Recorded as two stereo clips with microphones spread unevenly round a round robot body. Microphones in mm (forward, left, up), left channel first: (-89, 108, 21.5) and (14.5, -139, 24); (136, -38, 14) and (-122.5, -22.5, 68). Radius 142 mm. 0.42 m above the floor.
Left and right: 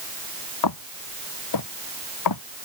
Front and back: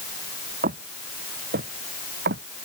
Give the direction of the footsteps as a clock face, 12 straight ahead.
8 o'clock.